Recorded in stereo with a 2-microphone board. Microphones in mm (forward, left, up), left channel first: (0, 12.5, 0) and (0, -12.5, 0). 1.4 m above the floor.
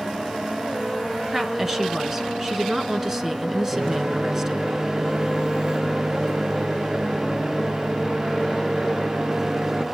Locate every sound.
1.3 s a woman speaking: 20° right (ahead or behind), 1.7 m
3.7 s a microwave: 35° right (ahead or behind), 0.8 m